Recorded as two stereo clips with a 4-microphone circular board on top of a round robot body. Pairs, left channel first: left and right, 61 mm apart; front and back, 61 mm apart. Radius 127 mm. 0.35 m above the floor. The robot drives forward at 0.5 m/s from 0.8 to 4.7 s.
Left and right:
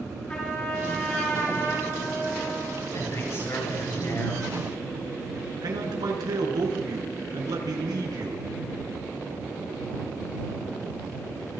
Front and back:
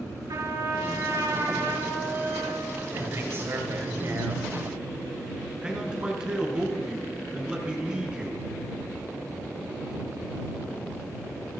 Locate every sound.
0.3 s a trumpet: 165° left, 7.5 m
2.9 s a man speaking: 135° left, 7.5 m; by 4.5 s 140° left, 8 m
5.6 s a man speaking: 105° right, 5 m